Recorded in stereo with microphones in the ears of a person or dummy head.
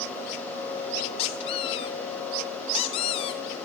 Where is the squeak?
35° left (ahead or behind), 0.6 m.